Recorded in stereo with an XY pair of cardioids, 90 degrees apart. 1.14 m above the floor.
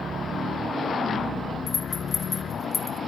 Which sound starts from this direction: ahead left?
A rattle, at 1.7 s.